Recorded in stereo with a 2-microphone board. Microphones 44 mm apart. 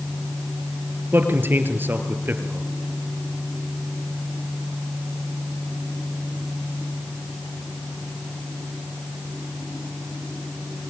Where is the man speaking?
50° right (ahead or behind), 3 m.